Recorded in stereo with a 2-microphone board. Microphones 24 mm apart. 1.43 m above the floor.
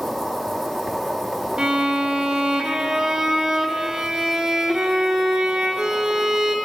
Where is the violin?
30° right (ahead or behind), 0.7 m.